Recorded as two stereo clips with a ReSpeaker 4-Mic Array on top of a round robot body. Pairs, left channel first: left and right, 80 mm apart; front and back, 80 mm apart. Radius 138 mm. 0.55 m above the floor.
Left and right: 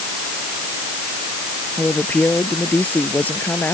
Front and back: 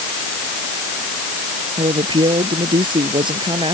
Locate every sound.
1.8 s a woman speaking: 160° left; by 3.7 s 155° left